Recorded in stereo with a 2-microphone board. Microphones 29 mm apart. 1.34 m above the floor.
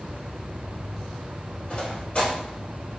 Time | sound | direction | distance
1.7 | footsteps | 40° left (ahead or behind) | 1.8 m